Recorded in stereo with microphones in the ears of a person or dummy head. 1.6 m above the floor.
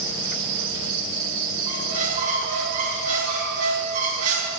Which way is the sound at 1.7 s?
45° right (ahead or behind).